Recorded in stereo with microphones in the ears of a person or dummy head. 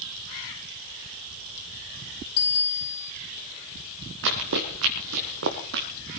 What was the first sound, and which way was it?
A bicycle bell, 30° left (ahead or behind).